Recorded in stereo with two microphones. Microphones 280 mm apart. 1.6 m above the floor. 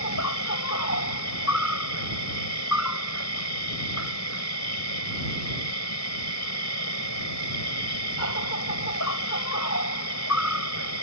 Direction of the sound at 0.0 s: 70° left (ahead or behind).